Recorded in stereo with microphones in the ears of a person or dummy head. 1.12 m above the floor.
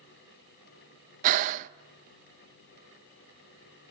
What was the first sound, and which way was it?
Breathing, 50° right (ahead or behind).